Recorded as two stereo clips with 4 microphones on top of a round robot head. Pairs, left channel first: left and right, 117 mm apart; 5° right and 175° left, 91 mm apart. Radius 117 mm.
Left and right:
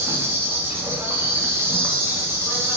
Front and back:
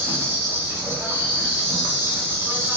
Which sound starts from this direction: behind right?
An insect, at 0.0 s.